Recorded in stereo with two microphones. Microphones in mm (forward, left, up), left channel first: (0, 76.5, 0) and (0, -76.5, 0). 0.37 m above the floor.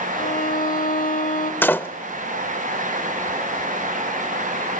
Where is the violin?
65° left (ahead or behind), 1.1 m.